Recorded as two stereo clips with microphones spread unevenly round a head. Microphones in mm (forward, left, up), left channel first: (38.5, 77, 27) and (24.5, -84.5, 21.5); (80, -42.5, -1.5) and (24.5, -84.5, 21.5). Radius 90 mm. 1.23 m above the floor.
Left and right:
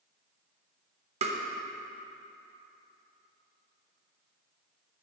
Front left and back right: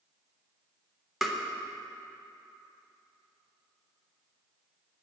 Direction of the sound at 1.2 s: 50° right.